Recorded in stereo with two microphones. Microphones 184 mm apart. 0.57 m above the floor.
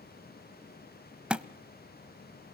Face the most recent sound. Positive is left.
turn(degrees=-5)  # may be behind; listen again after turning